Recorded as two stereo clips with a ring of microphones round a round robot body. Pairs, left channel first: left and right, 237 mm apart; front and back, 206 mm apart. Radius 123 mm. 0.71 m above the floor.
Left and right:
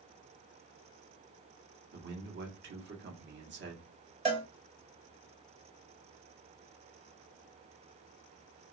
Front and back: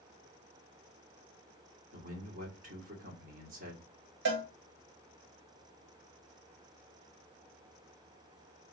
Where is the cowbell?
155° right, 1.4 m.